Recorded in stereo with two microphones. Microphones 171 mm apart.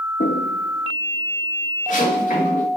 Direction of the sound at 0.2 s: 75° left (ahead or behind).